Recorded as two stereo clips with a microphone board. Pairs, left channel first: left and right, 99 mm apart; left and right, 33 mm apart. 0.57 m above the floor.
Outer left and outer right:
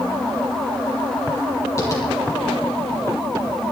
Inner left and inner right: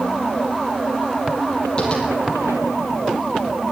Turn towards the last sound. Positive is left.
turn(degrees=35)  # may be behind; listen again after turning